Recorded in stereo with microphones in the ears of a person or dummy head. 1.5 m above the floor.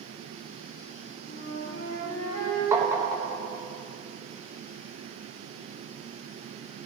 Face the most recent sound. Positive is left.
turn(degrees=-25)  # may be behind; listen again after turning